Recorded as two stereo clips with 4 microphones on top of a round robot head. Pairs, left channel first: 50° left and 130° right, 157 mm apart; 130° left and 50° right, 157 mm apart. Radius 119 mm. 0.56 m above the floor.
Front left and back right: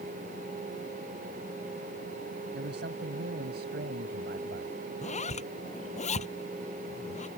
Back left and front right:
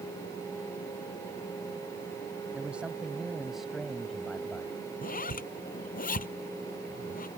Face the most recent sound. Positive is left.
turn(degrees=95)